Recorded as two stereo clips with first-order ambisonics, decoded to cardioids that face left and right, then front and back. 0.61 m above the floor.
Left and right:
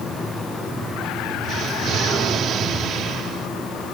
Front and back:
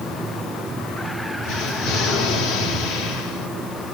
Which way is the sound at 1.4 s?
35° right.